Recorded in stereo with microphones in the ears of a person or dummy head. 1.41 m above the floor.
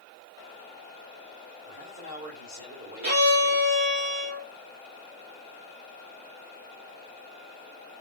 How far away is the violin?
About 0.9 m.